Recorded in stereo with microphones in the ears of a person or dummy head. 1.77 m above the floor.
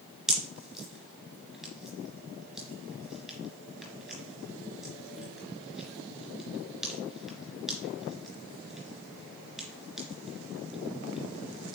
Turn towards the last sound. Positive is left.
turn(degrees=0)  # may be behind; listen again after turning